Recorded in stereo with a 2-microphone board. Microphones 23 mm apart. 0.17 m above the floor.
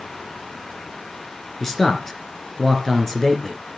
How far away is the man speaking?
About 3 m.